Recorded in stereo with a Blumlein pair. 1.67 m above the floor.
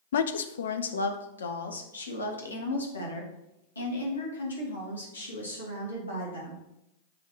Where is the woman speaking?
60° left, 0.6 m; by 6.6 s 80° left, 4 m.